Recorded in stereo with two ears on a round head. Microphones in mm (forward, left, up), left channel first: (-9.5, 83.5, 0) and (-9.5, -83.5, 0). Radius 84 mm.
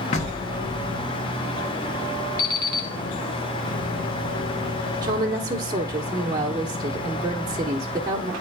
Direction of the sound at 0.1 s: 40° left (ahead or behind).